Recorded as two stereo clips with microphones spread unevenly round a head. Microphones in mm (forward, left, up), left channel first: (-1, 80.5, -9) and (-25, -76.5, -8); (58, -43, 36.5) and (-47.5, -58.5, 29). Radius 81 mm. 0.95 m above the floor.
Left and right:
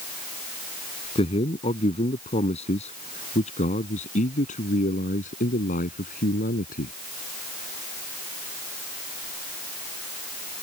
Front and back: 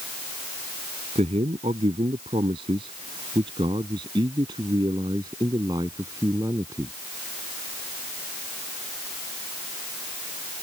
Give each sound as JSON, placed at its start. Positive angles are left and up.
{"t": 1.1, "sound": "a man speaking", "azimuth_deg": 135}